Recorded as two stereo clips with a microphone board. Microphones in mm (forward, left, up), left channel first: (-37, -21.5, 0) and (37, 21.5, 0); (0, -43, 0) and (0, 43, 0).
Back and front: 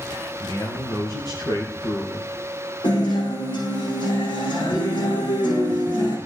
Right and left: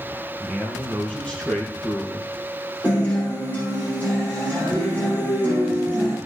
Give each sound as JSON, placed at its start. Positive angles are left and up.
{"t": 0.4, "sound": "a man speaking", "azimuth_deg": 180, "distance_m": 3.0}
{"t": 2.8, "sound": "a guitar", "azimuth_deg": -160, "distance_m": 8.0}